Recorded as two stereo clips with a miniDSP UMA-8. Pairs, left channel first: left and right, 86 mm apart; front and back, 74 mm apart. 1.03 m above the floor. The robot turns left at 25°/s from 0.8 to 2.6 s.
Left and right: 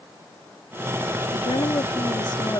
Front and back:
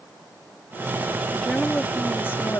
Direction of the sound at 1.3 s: 85° left.